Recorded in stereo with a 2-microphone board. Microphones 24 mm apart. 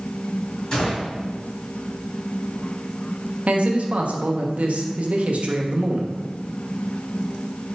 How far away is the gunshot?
About 2.0 m.